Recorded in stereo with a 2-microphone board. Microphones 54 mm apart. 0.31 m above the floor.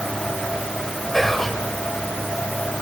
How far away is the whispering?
About 1.0 m.